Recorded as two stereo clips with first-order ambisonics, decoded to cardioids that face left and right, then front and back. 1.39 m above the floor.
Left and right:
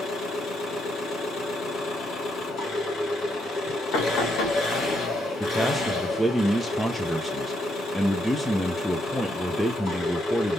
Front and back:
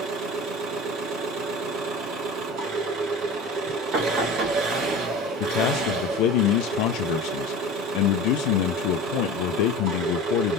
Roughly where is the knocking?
Behind left.